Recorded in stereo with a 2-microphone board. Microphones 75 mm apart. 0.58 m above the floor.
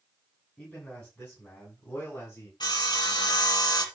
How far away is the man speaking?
About 6.5 m.